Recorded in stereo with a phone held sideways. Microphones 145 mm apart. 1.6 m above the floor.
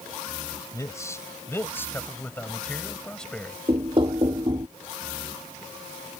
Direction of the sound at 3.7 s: 35° right (ahead or behind).